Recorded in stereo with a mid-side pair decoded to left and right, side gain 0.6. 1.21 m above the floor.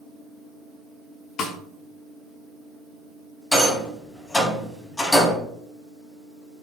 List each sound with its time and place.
1.4 s a snare drum: 55° left, 1.8 m
3.5 s a rattle: 20° left, 3 m